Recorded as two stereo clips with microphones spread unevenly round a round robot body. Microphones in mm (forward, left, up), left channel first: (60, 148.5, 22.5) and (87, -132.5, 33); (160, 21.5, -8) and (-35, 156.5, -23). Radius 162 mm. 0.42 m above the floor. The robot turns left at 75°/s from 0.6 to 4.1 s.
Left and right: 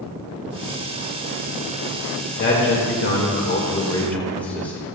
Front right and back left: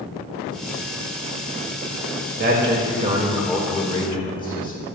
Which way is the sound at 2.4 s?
140° left.